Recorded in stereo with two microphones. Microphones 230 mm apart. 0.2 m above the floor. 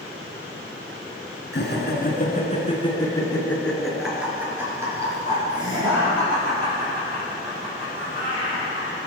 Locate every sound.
1.5 s laughter: 55° left (ahead or behind), 2.5 m; by 9.0 s 35° right (ahead or behind), 8 m